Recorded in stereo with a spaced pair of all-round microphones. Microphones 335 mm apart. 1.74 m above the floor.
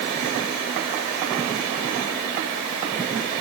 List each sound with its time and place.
Only background noise.